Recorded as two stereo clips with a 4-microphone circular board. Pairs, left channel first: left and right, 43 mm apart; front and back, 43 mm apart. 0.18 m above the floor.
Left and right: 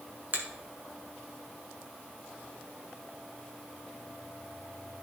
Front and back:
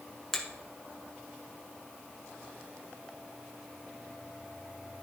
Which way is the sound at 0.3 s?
80° right.